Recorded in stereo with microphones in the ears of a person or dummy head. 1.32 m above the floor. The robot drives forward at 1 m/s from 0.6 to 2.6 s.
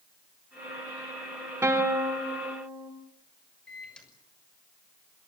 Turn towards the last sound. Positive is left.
turn(degrees=10)  # may be behind; listen again after turning